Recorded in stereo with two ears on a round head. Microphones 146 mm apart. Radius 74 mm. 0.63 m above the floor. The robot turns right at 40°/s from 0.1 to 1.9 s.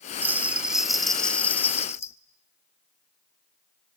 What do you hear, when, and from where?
0.2 s a bell: 15° right (ahead or behind), 0.9 m; by 2.1 s 15° left (ahead or behind), 0.9 m